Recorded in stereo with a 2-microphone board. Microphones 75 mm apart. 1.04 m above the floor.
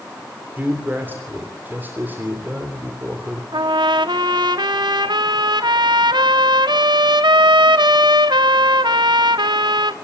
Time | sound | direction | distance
0.6 | a man speaking | 25° right (ahead or behind) | 3 m
3.5 | a trumpet | 80° right | 1.3 m